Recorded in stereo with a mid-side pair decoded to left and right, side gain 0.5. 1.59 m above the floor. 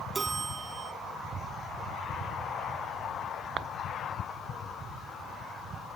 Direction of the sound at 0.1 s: 30° right.